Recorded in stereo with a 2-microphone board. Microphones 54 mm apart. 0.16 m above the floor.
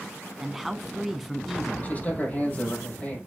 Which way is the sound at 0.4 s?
Centre (ahead or behind).